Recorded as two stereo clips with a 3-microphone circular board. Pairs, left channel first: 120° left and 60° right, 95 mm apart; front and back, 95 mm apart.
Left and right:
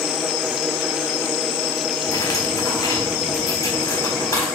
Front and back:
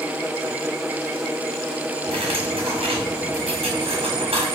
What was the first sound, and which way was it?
Cutlery clinking, 175° left.